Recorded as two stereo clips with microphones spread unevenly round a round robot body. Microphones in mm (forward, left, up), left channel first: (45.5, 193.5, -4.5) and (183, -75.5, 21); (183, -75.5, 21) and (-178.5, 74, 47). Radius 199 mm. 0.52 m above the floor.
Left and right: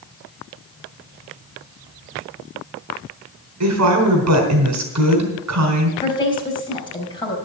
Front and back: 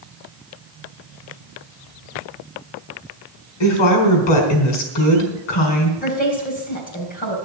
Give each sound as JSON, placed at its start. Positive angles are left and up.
{"t": 3.6, "sound": "a woman speaking", "azimuth_deg": -40, "distance_m": 4.0}
{"t": 6.0, "sound": "a woman speaking", "azimuth_deg": 45, "distance_m": 3.5}